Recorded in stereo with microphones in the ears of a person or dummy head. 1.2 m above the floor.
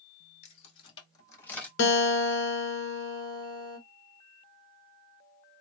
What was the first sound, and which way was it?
Keys jangling, 40° left (ahead or behind).